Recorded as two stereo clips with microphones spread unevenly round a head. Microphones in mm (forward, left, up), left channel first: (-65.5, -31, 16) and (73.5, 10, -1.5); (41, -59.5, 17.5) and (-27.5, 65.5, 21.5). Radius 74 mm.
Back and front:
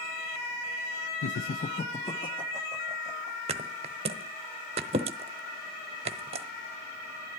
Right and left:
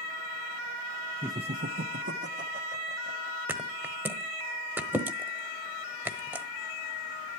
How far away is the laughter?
About 0.5 m.